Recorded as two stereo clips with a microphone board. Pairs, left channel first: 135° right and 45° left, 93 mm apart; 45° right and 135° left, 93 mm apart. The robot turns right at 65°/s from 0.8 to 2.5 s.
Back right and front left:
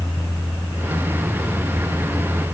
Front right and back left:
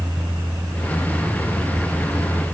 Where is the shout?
I don't hear a shout.